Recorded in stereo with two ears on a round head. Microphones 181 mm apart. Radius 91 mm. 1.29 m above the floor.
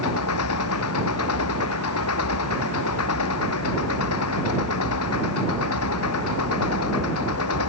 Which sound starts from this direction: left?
An engine running, at 0.0 s.